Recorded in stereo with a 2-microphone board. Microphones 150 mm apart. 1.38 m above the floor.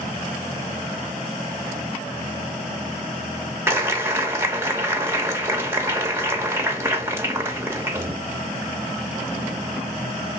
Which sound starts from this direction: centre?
A clap, at 3.7 s.